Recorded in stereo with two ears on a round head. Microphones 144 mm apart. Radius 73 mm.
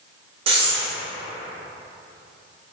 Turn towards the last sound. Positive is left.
turn(degrees=-35)  # may be behind; listen again after turning